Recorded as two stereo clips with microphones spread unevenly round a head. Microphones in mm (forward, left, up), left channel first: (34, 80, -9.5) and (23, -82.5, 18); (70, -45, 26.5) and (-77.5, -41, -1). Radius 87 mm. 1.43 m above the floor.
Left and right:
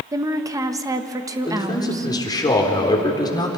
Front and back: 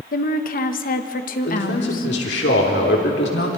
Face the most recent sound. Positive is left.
turn(degrees=15)